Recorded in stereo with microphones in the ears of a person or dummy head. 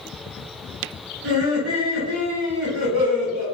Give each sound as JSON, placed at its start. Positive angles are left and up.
{"t": 1.2, "sound": "laughter", "side_deg": -70, "distance_m": 1.1}